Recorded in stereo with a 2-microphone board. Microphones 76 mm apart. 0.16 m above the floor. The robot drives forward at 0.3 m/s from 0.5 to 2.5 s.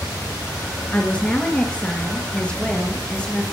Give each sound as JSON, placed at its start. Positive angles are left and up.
{"t": 0.9, "sound": "a woman speaking", "side_deg": 20, "distance_m": 2.0}